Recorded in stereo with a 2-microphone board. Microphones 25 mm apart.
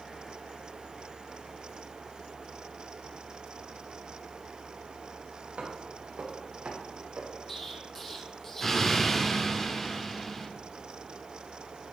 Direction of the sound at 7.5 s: 15° left (ahead or behind).